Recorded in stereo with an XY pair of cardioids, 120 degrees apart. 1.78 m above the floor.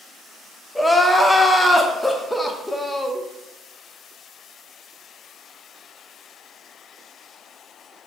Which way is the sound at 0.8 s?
5° left.